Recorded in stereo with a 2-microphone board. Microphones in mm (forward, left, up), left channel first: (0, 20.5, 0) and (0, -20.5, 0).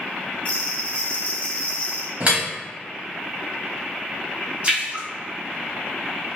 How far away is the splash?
About 1.3 m.